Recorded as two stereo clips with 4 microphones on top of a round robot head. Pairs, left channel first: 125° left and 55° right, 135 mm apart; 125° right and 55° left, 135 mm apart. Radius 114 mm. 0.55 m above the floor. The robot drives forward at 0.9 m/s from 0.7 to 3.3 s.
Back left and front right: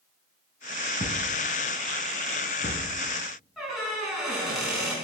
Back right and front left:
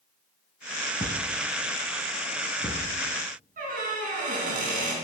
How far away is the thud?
About 1.7 m.